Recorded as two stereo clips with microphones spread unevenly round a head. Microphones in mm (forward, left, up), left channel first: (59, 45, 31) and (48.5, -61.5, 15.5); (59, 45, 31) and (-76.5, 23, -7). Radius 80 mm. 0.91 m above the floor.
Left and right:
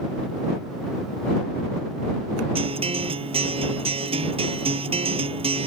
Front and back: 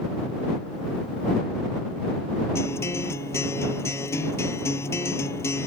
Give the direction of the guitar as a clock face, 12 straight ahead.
2 o'clock.